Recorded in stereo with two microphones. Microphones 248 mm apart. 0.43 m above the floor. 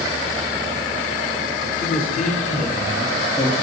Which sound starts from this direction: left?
A man speaking, at 1.8 s.